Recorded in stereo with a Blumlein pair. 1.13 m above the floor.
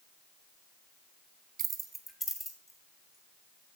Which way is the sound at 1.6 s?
30° right.